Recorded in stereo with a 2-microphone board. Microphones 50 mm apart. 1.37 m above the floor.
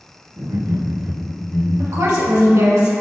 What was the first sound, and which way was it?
Laughter, 75° right (ahead or behind).